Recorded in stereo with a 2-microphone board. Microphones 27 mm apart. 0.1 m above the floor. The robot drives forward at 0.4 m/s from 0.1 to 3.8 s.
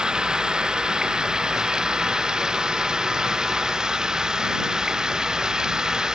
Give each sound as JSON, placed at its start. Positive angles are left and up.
{"t": 0.0, "sound": "running water", "side_deg": -25}